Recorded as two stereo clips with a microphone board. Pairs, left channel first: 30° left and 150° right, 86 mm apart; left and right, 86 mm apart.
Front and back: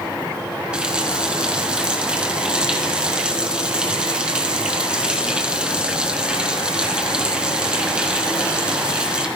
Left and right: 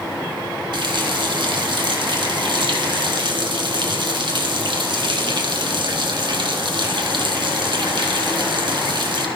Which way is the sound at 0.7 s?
70° right.